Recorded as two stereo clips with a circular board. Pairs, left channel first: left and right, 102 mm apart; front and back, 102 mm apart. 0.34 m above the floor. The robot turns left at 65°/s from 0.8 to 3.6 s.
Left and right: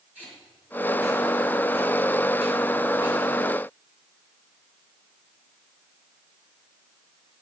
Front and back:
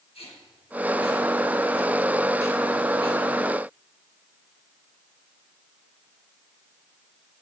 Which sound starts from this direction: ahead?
Tape being pulled, at 0.1 s.